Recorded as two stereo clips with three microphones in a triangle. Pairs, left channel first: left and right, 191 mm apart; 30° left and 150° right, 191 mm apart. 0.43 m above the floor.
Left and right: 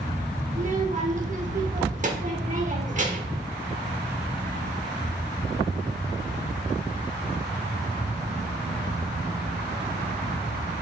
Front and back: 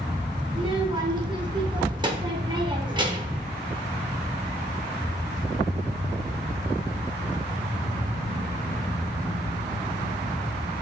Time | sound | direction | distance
0.5 | a child speaking | 95° right | 0.8 m